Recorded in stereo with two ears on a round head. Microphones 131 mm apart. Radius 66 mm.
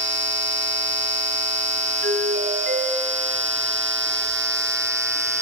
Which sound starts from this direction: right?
A doorbell, at 2.0 s.